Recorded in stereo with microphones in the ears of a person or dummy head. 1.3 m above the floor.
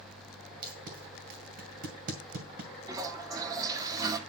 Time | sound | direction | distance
0.6 | tape being pulled | 50° right (ahead or behind) | 1.9 m
2.9 | a toilet flushing | 20° right (ahead or behind) | 1.3 m